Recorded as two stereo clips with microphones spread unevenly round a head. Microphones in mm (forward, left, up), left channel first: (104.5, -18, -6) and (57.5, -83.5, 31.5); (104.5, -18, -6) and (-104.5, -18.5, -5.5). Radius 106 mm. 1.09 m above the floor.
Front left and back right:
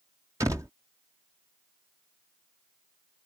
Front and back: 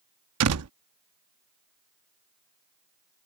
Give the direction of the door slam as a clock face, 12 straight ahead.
6 o'clock.